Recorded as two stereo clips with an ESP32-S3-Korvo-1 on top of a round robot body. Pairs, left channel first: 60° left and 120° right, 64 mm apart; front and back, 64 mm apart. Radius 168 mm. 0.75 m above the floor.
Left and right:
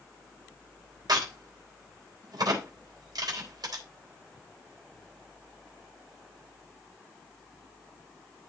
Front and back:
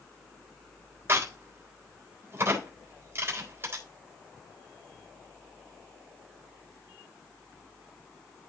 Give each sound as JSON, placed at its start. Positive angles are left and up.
{"t": 1.1, "sound": "a crack", "azimuth_deg": -130, "distance_m": 4.0}